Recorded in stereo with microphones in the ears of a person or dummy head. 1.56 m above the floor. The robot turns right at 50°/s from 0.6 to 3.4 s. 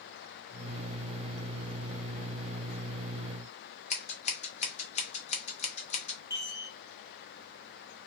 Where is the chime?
20° left (ahead or behind), 0.9 m.